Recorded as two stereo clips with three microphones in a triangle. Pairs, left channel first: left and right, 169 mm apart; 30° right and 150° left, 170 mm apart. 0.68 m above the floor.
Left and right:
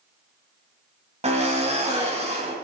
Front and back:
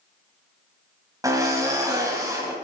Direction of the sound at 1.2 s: 140° right.